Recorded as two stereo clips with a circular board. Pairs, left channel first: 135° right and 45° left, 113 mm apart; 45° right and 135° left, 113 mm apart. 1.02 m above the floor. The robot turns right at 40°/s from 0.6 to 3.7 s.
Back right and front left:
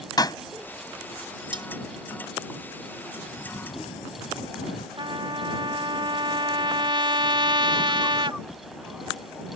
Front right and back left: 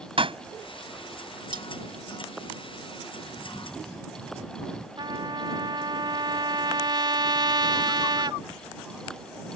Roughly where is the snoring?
Behind right.